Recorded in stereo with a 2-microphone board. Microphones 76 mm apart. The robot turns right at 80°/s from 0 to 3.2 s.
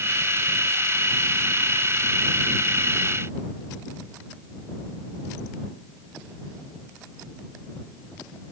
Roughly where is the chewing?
I don't hear chewing.